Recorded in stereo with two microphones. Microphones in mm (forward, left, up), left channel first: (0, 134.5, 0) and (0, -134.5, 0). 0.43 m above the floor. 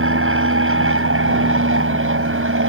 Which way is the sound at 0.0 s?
50° right (ahead or behind).